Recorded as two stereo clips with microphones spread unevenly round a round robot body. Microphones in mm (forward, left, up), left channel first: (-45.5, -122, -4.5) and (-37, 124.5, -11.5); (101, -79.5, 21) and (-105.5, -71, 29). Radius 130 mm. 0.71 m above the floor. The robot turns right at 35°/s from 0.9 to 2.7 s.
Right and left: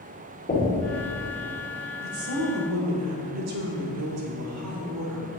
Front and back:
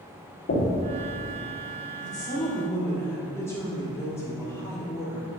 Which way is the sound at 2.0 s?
50° left.